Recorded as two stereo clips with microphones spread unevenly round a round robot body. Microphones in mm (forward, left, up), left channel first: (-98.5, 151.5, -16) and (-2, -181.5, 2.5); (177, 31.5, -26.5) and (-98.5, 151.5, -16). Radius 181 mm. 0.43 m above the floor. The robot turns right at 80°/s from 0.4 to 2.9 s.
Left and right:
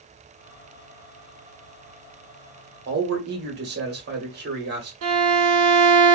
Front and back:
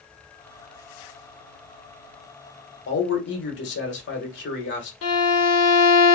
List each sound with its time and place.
2.9 s a man speaking: 30° right, 1.3 m
5.0 s a violin: 40° right, 0.9 m